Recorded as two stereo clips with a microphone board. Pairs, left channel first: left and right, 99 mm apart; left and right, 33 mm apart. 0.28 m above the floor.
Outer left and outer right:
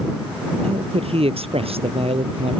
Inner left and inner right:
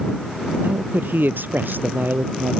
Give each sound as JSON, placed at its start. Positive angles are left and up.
{"t": 0.6, "sound": "a man speaking", "side_deg": -80}